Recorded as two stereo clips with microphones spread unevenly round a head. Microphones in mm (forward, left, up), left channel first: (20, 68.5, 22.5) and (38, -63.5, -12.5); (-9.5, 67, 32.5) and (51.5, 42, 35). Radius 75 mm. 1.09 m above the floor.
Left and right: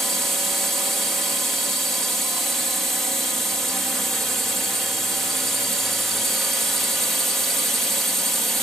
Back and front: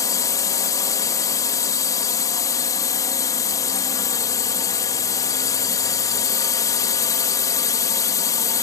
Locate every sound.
0.0 s a drone: 165° right